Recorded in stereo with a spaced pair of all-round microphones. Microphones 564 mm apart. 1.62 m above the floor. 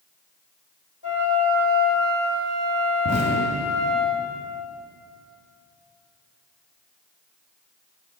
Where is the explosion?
10° right (ahead or behind), 1.7 m.